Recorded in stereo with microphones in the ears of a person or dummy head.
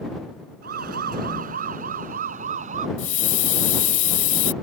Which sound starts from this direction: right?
A siren, at 0.6 s.